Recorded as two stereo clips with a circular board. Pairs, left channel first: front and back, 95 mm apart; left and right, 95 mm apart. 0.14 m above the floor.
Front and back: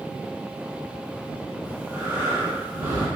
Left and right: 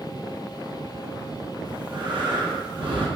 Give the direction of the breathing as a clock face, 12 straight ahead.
4 o'clock.